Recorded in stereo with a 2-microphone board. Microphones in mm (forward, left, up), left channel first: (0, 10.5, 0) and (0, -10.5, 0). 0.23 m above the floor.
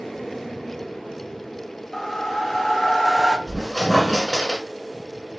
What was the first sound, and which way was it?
A whoosh, 15° left (ahead or behind).